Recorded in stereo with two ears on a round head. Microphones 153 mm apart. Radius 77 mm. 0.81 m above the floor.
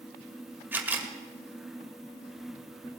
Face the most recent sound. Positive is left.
turn(degrees=-10)  # may be behind; listen again after turning